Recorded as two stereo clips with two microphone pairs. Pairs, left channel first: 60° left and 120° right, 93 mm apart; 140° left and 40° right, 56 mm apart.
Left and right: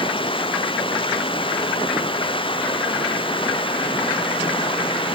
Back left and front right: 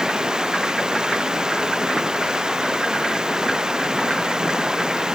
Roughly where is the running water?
Ahead left.